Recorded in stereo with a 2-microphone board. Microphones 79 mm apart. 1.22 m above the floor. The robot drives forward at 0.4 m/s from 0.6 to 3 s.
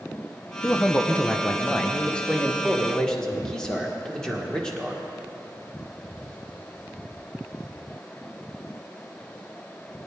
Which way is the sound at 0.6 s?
20° left (ahead or behind).